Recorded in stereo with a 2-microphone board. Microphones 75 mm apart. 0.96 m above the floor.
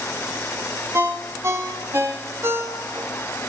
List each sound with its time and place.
0.9 s a ringtone: 35° right (ahead or behind), 0.8 m